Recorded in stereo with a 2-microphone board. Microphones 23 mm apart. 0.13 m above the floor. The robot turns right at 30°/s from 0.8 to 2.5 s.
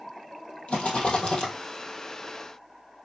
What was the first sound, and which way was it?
A rattle, 60° left (ahead or behind).